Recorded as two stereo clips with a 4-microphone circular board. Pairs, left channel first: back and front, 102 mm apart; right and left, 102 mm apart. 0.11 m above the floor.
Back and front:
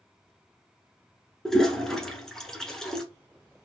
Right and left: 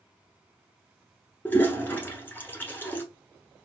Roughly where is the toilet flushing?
Right.